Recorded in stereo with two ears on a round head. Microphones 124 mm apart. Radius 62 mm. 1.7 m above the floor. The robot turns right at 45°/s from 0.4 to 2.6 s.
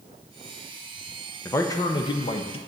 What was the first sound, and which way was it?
A man speaking, 25° left.